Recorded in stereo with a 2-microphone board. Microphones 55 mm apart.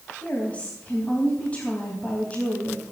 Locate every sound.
0.2 s a woman speaking: 25° left (ahead or behind), 3.5 m